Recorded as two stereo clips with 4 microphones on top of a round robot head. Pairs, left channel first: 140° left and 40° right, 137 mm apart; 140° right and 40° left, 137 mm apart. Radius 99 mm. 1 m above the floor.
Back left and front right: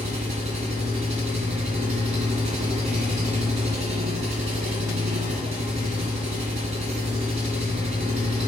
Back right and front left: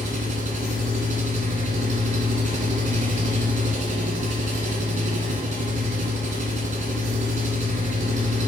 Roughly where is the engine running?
Ahead.